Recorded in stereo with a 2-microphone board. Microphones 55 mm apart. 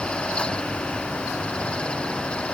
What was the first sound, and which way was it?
Only background noise.